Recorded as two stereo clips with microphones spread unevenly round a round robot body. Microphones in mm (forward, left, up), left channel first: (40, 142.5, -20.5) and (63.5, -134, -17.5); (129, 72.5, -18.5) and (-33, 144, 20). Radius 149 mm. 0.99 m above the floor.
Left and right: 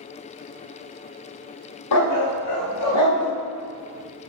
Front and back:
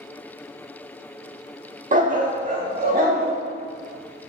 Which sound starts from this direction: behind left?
A dog barking, at 1.9 s.